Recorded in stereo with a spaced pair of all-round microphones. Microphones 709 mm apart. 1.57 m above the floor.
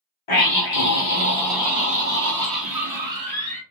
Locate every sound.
0.3 s a scream: 45° left (ahead or behind), 0.9 m; by 3.6 s 40° right (ahead or behind), 1.5 m